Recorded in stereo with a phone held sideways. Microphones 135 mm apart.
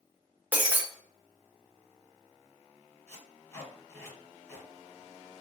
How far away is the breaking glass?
About 0.6 m.